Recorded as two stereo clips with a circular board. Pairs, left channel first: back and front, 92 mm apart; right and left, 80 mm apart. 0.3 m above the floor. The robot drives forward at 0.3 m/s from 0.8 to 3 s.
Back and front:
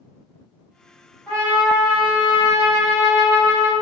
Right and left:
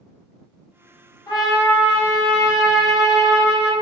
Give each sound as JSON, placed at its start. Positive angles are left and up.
{"t": 1.3, "sound": "a trumpet", "azimuth_deg": -110, "distance_m": 1.2}